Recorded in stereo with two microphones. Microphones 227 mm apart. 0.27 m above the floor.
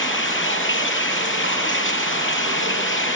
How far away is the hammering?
No hammering in this recording.